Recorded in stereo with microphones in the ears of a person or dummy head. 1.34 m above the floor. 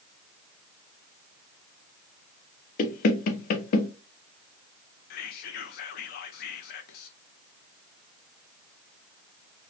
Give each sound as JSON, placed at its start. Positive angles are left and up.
{"t": 2.8, "sound": "knocking", "side_deg": 60, "distance_m": 0.8}
{"t": 5.1, "sound": "whispering", "side_deg": 65, "distance_m": 0.8}